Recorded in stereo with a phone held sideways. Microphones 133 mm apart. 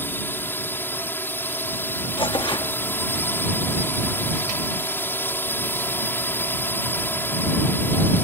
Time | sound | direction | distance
0.0 | a drone | 15° left (ahead or behind) | ?
2.2 | tearing paper | 35° left (ahead or behind) | ?